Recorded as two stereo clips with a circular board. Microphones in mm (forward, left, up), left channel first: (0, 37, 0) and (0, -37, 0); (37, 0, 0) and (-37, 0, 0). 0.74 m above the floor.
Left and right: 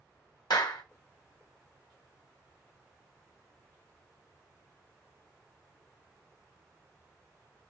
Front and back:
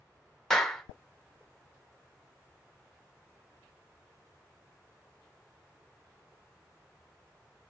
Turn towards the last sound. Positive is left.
turn(degrees=85)